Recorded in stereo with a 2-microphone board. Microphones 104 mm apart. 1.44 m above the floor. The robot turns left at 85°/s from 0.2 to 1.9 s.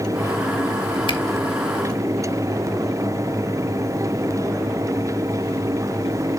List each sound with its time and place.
1.1 s a camera shutter: 50° left (ahead or behind), 1.4 m; by 1.2 s 55° left (ahead or behind), 1.4 m